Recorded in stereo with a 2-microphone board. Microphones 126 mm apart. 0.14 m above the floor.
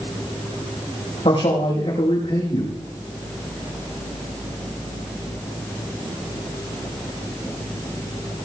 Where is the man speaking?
55° left (ahead or behind), 6 m.